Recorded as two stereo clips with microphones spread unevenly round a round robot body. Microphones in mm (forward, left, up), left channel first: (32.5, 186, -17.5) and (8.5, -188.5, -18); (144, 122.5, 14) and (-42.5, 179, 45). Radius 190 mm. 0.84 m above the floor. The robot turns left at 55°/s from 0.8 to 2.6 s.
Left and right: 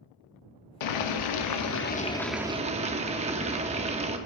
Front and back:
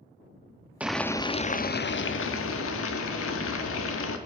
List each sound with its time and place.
0.8 s boiling: 80° left, 0.7 m; by 4.2 s 20° right, 0.7 m